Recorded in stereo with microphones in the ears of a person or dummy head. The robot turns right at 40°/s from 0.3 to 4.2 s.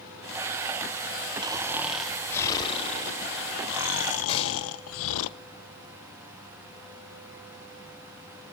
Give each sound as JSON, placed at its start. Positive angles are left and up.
{"t": 1.4, "sound": "snoring", "azimuth_deg": -25, "distance_m": 0.7}
{"t": 4.3, "sound": "a gunshot", "side_deg": 35, "distance_m": 5.5}